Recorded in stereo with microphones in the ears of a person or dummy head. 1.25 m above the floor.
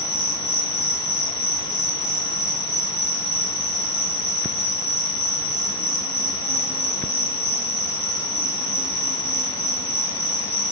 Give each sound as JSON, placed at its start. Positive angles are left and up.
{"t": 0.0, "sound": "an insect", "side_deg": 0, "distance_m": 1.2}